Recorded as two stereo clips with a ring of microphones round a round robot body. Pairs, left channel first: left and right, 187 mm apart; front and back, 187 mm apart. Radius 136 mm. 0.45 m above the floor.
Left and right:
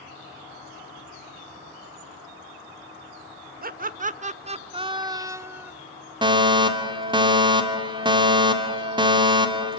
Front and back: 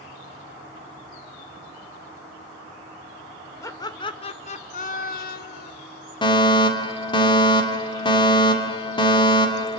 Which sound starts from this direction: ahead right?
A fire alarm, at 6.2 s.